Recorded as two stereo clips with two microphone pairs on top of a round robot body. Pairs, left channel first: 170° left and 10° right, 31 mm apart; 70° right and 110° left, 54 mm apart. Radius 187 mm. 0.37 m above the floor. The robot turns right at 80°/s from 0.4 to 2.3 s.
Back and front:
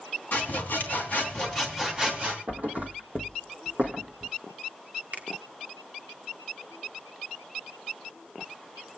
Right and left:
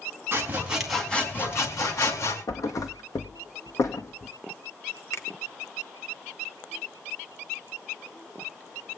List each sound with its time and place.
0.3 s sawing: 160° left, 3.5 m; by 2.4 s 50° right, 3.5 m
2.5 s a thud: 50° right, 1.9 m
5.1 s a finger snap: 45° right, 1.6 m